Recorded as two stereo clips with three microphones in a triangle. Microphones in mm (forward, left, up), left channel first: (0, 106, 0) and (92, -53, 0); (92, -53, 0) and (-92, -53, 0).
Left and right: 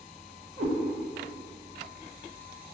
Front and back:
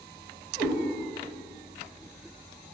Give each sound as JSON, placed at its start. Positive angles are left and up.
{"t": 0.6, "sound": "a cat meowing", "azimuth_deg": -85, "distance_m": 0.9}